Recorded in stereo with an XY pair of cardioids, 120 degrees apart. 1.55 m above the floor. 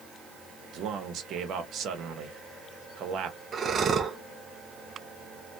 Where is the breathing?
40° right, 0.7 m.